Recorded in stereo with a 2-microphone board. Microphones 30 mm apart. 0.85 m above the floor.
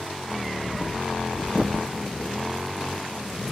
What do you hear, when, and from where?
0.6 s breathing: 20° right (ahead or behind), 0.6 m